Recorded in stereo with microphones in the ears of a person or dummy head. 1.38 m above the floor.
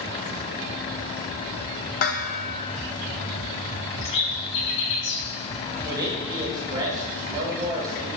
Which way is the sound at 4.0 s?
75° left (ahead or behind).